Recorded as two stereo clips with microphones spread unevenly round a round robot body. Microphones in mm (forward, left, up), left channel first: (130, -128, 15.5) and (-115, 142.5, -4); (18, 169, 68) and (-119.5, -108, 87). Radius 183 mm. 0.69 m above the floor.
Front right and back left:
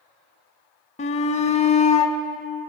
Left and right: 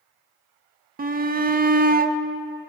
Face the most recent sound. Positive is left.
turn(degrees=-100)